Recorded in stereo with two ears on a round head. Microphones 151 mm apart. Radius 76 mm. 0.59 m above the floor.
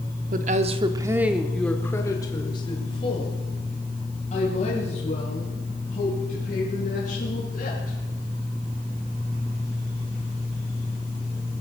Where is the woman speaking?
50° right (ahead or behind), 1.1 m; by 8.0 s 45° left (ahead or behind), 6.5 m.